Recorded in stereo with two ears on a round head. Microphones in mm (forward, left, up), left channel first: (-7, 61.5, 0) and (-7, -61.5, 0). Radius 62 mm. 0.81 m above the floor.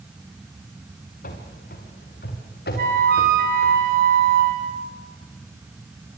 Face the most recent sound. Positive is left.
turn(degrees=-75)  # may be behind; listen again after turning